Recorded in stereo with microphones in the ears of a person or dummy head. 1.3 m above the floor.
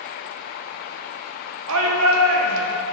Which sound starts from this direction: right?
A shout, at 1.7 s.